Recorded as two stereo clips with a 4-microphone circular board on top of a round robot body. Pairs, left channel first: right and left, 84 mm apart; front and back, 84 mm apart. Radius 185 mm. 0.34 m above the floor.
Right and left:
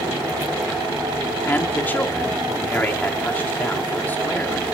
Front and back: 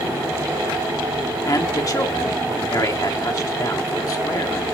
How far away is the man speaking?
About 2.0 m.